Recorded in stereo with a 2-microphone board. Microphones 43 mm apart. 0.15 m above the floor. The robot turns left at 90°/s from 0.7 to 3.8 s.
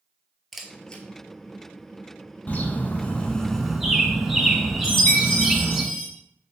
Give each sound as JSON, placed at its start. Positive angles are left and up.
{"t": 0.5, "sound": "a camera shutter", "side_deg": 0, "distance_m": 0.7}
{"t": 2.5, "sound": "a bird", "azimuth_deg": 105, "distance_m": 0.6}
{"t": 4.8, "sound": "a chime", "side_deg": 15, "distance_m": 2.0}